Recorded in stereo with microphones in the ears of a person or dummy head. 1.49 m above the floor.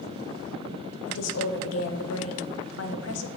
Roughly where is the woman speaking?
Left.